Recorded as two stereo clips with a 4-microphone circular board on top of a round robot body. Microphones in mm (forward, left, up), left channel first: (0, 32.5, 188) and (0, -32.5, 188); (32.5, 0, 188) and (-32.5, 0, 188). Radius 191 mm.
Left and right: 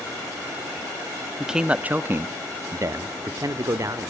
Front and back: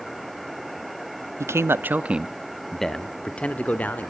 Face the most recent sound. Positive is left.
turn(degrees=-65)